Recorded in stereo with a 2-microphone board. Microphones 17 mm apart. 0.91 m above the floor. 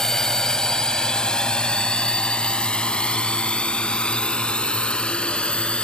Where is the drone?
30° left (ahead or behind); by 5.8 s 85° left.